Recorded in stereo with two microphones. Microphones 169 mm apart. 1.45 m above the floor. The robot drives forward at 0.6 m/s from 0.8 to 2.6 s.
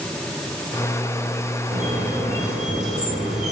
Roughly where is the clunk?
No clunk in this recording.